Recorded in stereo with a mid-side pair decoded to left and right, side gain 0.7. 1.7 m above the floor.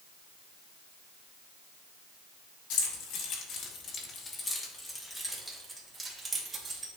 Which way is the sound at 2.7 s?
70° left.